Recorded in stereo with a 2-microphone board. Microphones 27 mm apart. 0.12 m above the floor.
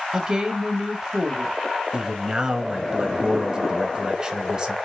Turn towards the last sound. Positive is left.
turn(degrees=-20)  # may be behind; listen again after turning